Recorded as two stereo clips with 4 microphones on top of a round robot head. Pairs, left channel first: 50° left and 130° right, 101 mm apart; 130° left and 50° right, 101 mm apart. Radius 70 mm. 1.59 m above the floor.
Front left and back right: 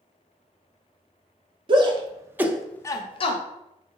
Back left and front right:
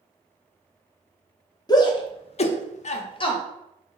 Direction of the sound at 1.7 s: 175° right.